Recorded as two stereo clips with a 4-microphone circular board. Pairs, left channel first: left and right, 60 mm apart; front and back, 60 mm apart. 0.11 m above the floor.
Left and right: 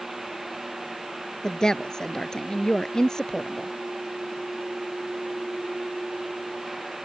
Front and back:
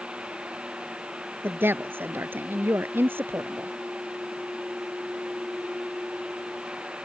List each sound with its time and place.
1.4 s a woman speaking: 160° left